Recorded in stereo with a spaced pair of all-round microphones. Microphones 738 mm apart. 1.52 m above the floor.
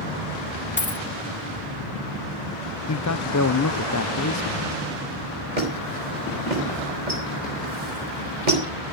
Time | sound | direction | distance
0.8 | a dropped coin | 15° left (ahead or behind) | 0.9 m
2.9 | a man speaking | 25° left (ahead or behind) | 0.6 m
5.6 | a squeak | 75° right (ahead or behind) | 4.5 m